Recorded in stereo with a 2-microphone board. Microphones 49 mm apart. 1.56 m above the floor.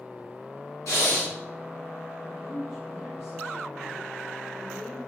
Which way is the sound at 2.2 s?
80° left.